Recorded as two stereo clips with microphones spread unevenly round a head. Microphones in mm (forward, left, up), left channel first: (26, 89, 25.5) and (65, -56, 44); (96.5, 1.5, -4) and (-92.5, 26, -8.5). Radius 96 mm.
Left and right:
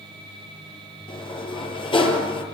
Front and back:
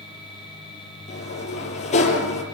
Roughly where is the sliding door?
Ahead left.